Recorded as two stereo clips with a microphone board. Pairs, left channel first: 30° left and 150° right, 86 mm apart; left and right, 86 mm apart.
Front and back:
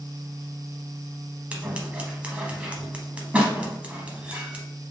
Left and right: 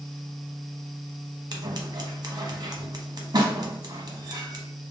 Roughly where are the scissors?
Right.